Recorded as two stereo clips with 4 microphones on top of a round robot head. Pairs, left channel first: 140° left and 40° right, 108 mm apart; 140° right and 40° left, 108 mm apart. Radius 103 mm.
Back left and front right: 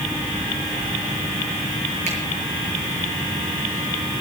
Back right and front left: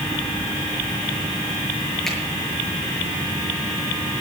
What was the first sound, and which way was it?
A finger snap, 55° right.